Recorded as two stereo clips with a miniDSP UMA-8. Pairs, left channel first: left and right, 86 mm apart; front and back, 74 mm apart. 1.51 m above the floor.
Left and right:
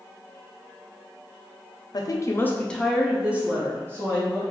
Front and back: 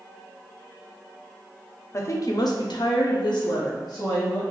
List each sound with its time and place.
1.9 s a woman speaking: 50° left, 0.6 m; by 4.4 s 35° right, 1.3 m